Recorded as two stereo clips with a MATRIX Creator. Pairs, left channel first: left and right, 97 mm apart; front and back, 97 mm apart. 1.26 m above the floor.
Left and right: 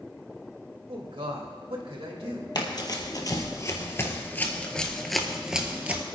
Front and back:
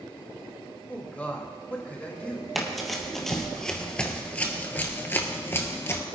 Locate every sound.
0.9 s a man speaking: 75° right, 2 m
2.5 s running footsteps: 90° left, 1.8 m; by 6.0 s 30° right, 1.4 m